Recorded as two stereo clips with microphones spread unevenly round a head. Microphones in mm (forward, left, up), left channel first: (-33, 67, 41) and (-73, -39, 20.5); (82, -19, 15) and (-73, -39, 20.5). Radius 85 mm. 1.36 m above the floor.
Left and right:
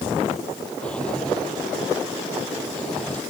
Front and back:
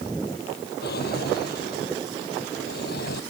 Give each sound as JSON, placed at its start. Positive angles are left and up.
{"t": 0.8, "sound": "a drawer", "azimuth_deg": -15}